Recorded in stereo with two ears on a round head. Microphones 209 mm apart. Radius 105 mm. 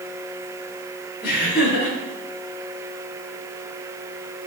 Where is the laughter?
45° left (ahead or behind), 4 m.